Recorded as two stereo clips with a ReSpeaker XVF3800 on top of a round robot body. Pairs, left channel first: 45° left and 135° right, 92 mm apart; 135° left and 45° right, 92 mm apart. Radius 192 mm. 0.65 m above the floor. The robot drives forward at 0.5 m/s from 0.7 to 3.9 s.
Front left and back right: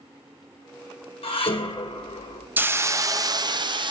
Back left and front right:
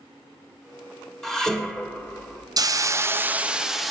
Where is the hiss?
70° right, 0.8 m; by 3.9 s 135° right, 1.0 m.